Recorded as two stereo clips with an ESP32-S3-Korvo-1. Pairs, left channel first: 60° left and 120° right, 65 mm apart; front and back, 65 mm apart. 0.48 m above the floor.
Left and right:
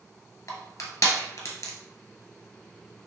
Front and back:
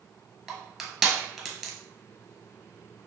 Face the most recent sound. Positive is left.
turn(degrees=95)